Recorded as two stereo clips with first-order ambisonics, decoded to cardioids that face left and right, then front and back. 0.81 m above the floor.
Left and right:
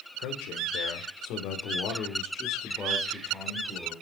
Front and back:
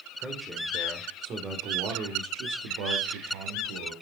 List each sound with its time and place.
0.2 s a man speaking: 100° left, 3 m; by 3.9 s 175° right, 3 m